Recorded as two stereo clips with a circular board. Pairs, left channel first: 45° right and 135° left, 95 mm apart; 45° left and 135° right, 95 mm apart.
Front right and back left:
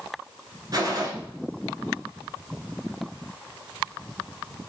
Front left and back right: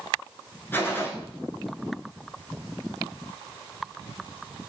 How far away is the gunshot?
About 0.6 m.